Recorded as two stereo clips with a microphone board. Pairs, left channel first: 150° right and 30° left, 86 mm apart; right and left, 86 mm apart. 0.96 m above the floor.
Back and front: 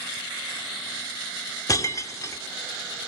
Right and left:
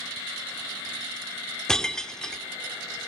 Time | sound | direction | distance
1.7 | breaking glass | 165° right | 0.6 m